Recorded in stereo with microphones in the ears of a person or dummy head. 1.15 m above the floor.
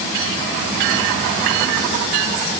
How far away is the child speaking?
No child speaking in this recording.